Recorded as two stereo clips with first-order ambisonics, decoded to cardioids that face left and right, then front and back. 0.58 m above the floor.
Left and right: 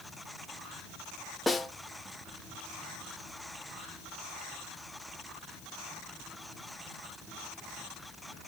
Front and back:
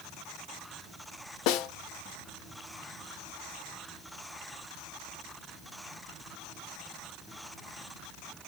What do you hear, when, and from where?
1.5 s a snare drum: 5° left, 0.5 m